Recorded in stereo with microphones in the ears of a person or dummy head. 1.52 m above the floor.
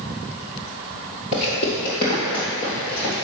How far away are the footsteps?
About 1.7 m.